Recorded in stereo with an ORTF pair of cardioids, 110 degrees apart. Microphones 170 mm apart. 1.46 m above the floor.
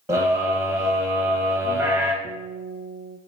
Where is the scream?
15° right, 1.9 m.